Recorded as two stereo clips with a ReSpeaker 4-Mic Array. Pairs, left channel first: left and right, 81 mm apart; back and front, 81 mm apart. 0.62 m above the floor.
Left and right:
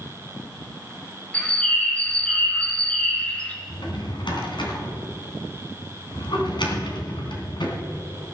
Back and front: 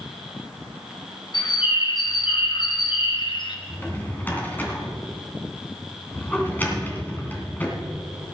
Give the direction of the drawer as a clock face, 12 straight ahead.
8 o'clock.